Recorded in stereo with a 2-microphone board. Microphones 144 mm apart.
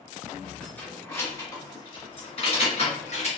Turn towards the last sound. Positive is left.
turn(degrees=55)  # may be behind; listen again after turning